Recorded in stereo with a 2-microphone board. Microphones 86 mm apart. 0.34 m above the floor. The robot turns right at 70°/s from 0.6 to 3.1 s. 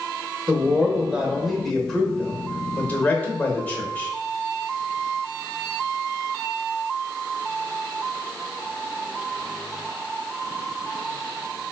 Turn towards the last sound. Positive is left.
turn(degrees=20)  # may be behind; listen again after turning